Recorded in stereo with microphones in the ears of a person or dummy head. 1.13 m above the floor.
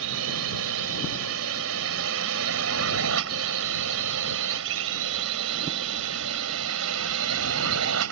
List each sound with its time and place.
0.0 s a drone: 70° right (ahead or behind)